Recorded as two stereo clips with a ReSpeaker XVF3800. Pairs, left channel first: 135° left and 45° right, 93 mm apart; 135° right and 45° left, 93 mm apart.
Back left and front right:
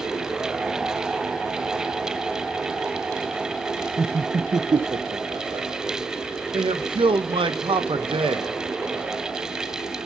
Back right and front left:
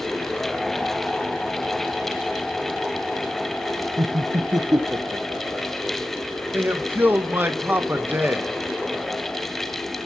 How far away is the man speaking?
About 1.1 m.